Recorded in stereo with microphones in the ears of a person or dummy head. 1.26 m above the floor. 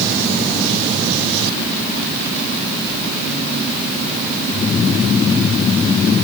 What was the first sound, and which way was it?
Only background noise.